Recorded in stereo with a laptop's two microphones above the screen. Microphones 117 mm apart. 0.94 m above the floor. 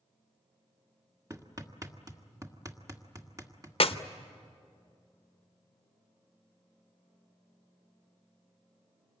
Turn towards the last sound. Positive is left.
turn(degrees=55)  # may be behind; listen again after turning